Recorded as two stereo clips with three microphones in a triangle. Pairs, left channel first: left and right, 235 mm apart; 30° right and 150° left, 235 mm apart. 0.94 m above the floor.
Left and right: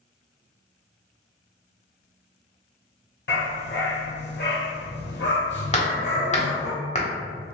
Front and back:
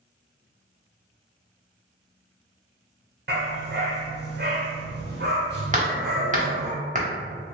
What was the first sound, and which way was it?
A dog barking, 120° left.